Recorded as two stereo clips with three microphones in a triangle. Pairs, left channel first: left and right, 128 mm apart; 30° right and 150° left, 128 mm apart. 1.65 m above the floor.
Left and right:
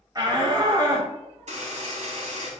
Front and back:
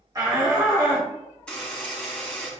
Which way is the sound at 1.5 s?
110° right.